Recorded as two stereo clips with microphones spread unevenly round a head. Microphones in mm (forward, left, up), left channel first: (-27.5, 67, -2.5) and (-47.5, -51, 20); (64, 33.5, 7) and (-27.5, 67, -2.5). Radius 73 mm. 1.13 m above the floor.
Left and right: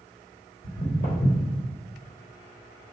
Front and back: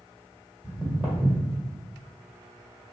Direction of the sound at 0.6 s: 80° left.